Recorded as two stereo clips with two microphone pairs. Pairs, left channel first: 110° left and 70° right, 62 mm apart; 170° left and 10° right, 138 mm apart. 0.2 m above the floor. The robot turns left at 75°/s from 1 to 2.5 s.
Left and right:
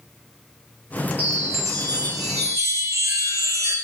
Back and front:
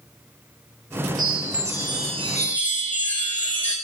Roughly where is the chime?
Ahead.